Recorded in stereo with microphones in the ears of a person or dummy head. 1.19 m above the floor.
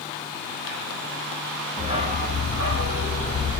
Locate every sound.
1.8 s a dog barking: 30° right (ahead or behind), 0.9 m; by 3.6 s 65° right (ahead or behind), 1.4 m